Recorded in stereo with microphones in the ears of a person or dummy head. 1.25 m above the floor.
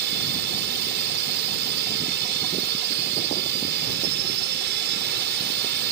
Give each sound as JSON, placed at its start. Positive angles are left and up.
{"t": 0.0, "sound": "a drone", "side_deg": -55}